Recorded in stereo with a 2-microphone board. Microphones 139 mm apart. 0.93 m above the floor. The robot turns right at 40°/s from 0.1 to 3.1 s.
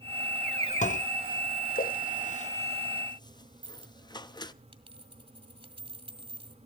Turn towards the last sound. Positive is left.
turn(degrees=-40)  # may be behind; listen again after turning